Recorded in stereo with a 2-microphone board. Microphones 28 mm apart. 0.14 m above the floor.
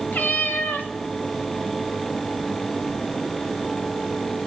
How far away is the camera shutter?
I don't hear a camera shutter.